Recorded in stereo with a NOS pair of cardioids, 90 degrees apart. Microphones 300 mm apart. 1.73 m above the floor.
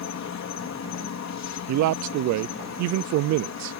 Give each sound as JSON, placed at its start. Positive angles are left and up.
{"t": 0.0, "sound": "an insect", "azimuth_deg": 60}
{"t": 1.7, "sound": "a man speaking", "azimuth_deg": -70}